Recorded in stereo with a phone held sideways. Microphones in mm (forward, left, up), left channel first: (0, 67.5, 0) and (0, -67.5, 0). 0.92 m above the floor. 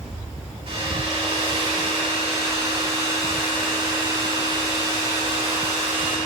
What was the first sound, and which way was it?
A hair dryer, 45° right (ahead or behind).